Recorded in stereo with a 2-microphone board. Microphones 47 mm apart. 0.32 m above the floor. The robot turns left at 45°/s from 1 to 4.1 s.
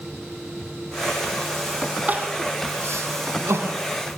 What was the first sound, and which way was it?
Crying, 35° right (ahead or behind).